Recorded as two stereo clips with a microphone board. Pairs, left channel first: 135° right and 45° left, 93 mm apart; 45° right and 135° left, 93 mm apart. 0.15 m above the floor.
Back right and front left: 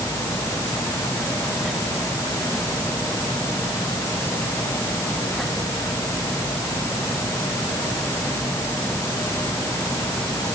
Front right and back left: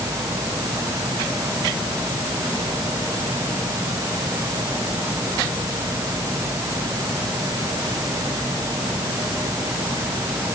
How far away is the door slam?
I don't hear a door slam.